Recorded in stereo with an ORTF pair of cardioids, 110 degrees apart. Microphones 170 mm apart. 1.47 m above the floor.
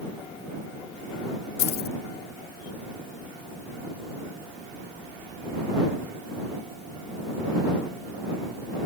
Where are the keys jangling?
70° left.